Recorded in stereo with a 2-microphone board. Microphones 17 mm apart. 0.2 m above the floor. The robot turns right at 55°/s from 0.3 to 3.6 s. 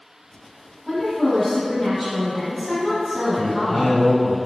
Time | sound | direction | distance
0.9 | a woman speaking | 20° left (ahead or behind) | 1.5 m
3.4 | a man speaking | 30° left (ahead or behind) | 1.9 m